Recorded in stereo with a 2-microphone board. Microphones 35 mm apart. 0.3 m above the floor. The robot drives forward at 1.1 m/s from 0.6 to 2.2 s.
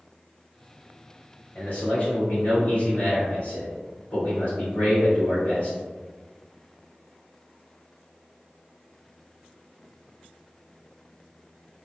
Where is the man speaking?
40° left (ahead or behind), 1.1 m; by 5.8 s 30° left (ahead or behind), 1.4 m.